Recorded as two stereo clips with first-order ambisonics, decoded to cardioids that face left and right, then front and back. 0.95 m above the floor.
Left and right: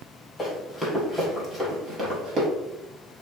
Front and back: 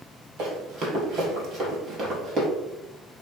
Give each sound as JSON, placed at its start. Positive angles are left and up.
{"t": 0.4, "sound": "running footsteps", "azimuth_deg": 170, "distance_m": 1.3}